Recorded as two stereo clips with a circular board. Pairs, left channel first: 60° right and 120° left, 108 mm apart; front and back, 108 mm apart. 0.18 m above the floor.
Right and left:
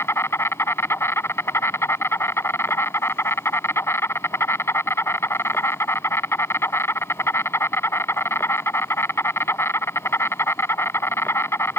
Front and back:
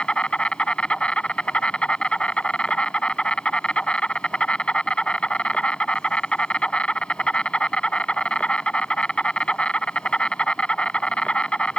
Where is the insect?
65° right.